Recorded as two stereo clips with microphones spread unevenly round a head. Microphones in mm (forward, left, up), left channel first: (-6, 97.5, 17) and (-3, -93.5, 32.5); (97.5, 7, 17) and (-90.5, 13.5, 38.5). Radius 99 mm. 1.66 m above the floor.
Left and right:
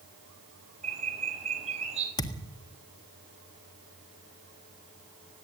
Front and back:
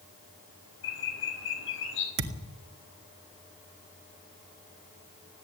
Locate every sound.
0.8 s a bird: 30° right, 4 m
2.2 s a thud: 160° left, 1.7 m